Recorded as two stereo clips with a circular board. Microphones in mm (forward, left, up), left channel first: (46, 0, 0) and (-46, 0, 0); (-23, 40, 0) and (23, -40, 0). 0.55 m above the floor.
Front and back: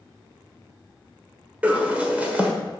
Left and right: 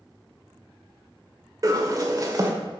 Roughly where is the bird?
Right.